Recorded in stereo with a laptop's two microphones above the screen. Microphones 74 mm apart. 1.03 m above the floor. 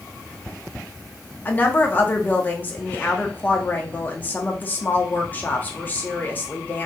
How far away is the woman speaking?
About 0.8 m.